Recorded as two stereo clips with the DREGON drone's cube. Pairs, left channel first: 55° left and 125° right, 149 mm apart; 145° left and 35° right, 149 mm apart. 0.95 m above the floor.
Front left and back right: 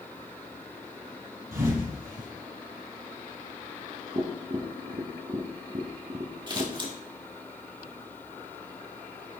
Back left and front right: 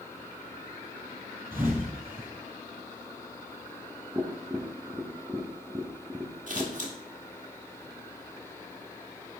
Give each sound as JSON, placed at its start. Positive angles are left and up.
{"t": 1.5, "sound": "a thud", "azimuth_deg": -110, "distance_m": 4.0}
{"t": 4.2, "sound": "tapping", "azimuth_deg": -105, "distance_m": 0.9}
{"t": 6.5, "sound": "scissors", "azimuth_deg": -65, "distance_m": 1.6}